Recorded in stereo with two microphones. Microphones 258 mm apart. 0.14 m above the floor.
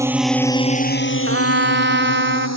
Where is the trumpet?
45° right (ahead or behind).